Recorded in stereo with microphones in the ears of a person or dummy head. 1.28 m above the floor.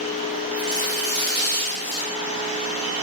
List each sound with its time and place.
0.6 s tearing paper: 25° left (ahead or behind), 3.5 m